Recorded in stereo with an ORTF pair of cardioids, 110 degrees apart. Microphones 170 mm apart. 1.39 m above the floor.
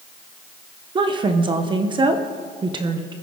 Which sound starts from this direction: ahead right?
A woman speaking, at 0.9 s.